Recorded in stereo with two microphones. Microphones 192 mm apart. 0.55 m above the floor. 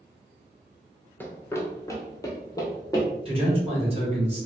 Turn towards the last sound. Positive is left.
turn(degrees=-30)  # may be behind; listen again after turning